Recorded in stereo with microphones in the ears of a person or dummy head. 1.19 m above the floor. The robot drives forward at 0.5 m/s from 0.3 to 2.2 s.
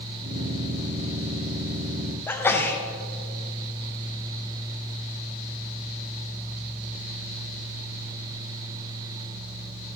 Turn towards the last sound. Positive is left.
turn(degrees=10)  # may be behind; listen again after turning